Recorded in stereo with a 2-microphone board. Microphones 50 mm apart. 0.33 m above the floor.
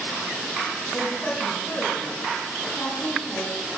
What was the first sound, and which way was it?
A woman speaking, 35° left (ahead or behind).